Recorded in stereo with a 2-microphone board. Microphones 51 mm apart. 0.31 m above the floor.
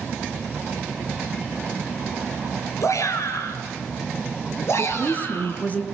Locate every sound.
2.8 s a shout: 75° left (ahead or behind), 4 m; by 5.6 s 45° left (ahead or behind), 5 m
4.8 s a woman speaking: 30° left (ahead or behind), 3 m